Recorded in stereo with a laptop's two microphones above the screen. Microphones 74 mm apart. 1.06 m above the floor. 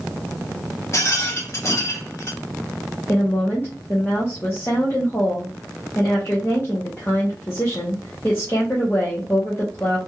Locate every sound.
0.9 s a rattle: 40° left (ahead or behind), 0.9 m
3.1 s a woman speaking: 30° left (ahead or behind), 0.8 m